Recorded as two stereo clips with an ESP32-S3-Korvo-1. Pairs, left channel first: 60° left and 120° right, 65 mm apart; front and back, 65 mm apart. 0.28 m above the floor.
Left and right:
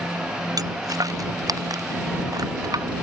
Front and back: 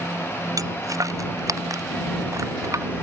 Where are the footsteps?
145° right; by 2.9 s 140° right.